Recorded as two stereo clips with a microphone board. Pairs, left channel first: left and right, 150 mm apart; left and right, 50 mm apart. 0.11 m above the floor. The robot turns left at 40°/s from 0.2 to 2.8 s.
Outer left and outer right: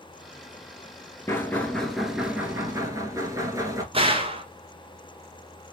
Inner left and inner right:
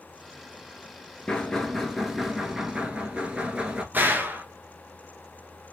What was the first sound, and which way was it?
Knocking, 25° left.